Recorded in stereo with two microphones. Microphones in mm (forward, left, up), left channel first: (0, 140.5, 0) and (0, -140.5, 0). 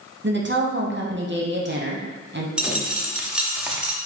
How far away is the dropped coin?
About 0.6 m.